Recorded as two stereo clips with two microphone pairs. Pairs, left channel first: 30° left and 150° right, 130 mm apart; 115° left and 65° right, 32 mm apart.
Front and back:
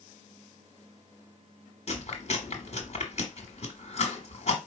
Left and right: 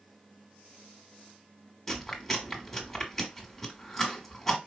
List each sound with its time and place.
1.9 s chewing: 30° left, 1.3 m